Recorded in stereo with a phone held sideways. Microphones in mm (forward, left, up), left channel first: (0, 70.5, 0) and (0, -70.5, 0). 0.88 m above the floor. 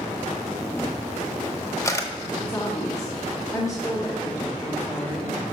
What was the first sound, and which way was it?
A camera shutter, 20° left (ahead or behind).